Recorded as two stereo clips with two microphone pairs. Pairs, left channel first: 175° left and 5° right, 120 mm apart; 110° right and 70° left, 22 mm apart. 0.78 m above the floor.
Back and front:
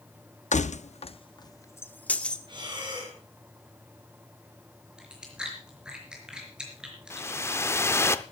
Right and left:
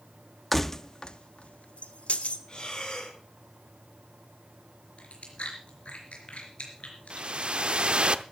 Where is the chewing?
85° right, 4 m.